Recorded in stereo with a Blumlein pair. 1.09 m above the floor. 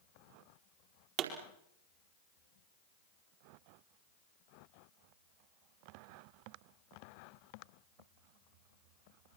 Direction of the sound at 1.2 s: 40° right.